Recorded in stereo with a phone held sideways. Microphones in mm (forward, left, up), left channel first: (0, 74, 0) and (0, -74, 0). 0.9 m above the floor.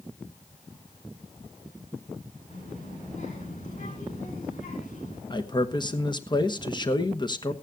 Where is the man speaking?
30° left (ahead or behind), 1.0 m.